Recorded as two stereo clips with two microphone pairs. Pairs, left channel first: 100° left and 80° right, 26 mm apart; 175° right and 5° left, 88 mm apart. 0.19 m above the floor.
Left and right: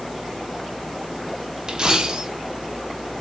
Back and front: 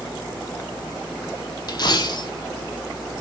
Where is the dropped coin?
140° right, 0.8 m.